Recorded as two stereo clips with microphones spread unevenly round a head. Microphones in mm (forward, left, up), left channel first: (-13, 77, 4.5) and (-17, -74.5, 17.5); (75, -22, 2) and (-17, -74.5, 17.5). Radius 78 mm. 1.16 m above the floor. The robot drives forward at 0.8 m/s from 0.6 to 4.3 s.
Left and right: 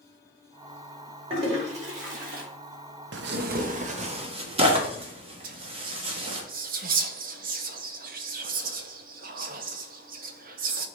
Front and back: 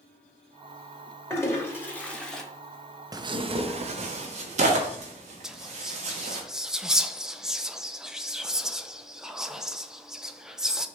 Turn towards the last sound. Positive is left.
turn(degrees=-60)